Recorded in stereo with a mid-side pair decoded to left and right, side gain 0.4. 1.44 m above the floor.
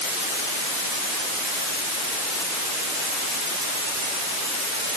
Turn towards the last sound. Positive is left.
No sound to turn to.